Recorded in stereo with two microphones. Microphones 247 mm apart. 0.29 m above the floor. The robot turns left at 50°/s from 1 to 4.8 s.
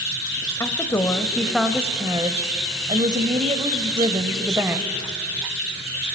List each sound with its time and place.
0.6 s a woman speaking: 10° left (ahead or behind), 1.0 m; by 5.0 s 5° right (ahead or behind), 1.0 m